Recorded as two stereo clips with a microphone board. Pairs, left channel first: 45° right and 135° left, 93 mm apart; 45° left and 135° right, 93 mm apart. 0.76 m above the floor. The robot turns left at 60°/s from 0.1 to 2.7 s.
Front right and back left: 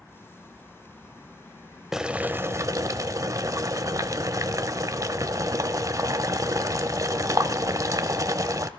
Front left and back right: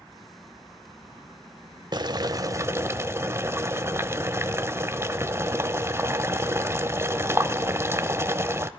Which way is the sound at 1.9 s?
140° right.